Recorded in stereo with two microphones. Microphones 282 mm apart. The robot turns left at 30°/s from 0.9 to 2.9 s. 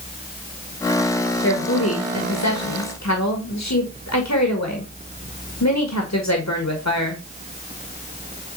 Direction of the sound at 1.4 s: 135° left.